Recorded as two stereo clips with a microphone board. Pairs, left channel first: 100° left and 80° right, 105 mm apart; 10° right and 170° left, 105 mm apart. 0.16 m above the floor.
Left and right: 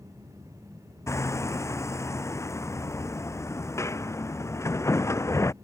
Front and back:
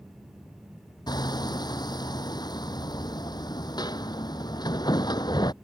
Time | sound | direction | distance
1.1 | hammering | 40° left | ?